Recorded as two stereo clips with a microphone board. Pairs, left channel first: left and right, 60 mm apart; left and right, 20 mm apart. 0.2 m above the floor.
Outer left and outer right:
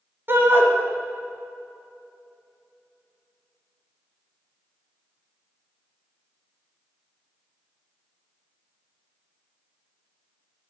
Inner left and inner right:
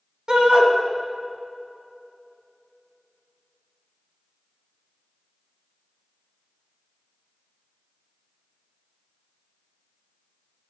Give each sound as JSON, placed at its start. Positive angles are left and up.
{"t": 0.3, "sound": "a shout", "side_deg": -40, "distance_m": 1.3}